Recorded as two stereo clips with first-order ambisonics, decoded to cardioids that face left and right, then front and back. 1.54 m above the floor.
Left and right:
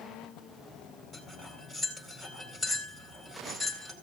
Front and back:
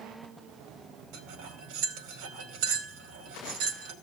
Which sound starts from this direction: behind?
Cutlery clinking, at 1.1 s.